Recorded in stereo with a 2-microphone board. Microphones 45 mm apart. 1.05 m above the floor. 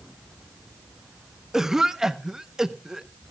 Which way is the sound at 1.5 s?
10° right (ahead or behind).